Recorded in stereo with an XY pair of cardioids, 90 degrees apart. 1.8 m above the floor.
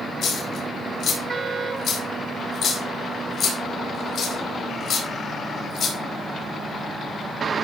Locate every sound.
0.2 s a dropped coin: 50° left, 4 m